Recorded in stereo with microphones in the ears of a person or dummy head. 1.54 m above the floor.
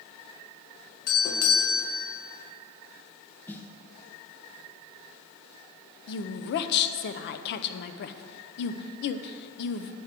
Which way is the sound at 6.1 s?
55° left (ahead or behind).